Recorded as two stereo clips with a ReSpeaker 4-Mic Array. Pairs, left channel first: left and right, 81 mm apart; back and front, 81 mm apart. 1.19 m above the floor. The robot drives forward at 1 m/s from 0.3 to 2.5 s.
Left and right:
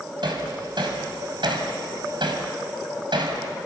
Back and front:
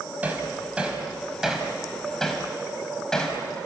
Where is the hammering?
70° right, 4.5 m; by 3.4 s 100° right, 4.5 m.